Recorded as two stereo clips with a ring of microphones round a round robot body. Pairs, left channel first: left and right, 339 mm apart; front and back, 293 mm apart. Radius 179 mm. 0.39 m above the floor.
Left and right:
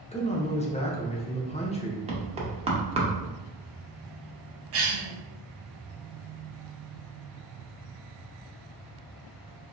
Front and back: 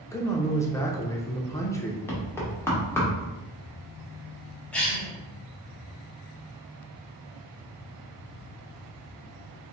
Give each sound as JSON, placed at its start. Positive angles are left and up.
{"t": 0.1, "sound": "a man speaking", "azimuth_deg": 60, "distance_m": 0.8}
{"t": 2.1, "sound": "knocking", "azimuth_deg": -65, "distance_m": 1.0}
{"t": 4.7, "sound": "a cough", "azimuth_deg": -85, "distance_m": 1.3}